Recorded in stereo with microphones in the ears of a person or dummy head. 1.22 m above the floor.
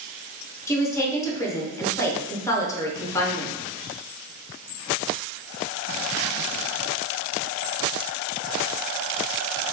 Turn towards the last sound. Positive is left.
turn(degrees=15)  # may be behind; listen again after turning